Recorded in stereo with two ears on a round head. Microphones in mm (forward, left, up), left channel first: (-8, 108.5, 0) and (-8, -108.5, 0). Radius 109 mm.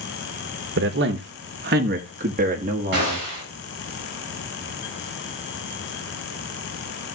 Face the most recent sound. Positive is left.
turn(degrees=-55)  # may be behind; listen again after turning